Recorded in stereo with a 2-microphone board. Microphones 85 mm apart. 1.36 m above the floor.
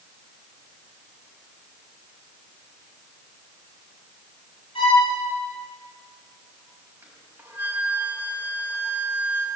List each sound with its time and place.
4.8 s a violin: 85° left, 9.5 m
7.0 s a flute: 20° right (ahead or behind), 6.5 m